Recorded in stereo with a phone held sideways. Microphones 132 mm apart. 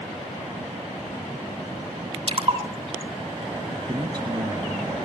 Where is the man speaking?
30° right (ahead or behind), 1.3 m.